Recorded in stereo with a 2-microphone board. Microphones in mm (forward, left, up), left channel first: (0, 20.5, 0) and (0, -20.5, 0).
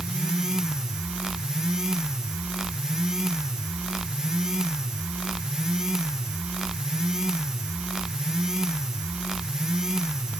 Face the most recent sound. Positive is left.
No sound to turn to.